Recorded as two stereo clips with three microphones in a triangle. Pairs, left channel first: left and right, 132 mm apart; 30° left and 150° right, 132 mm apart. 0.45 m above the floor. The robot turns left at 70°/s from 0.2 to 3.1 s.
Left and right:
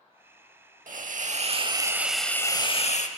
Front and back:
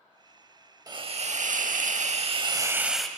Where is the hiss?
90° right, 0.6 m; by 3.1 s 115° left, 0.6 m.